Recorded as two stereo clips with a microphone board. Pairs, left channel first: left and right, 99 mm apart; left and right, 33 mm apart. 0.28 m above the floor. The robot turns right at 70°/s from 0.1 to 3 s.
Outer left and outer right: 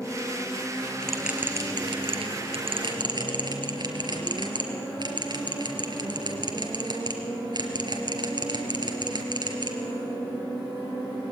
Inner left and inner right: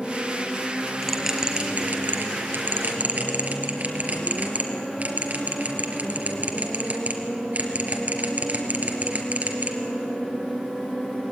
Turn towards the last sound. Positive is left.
turn(degrees=-50)  # may be behind; listen again after turning